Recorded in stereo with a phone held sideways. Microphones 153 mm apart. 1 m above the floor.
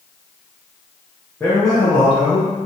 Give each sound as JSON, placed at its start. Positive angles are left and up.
{"t": 1.4, "sound": "a man speaking", "side_deg": 15, "distance_m": 0.6}